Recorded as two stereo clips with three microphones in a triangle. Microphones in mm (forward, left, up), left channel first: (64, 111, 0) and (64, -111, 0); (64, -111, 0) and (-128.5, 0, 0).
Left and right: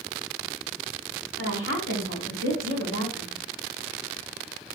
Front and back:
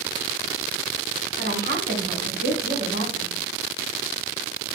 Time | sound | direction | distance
1.4 | a woman speaking | 110° left | 4.5 m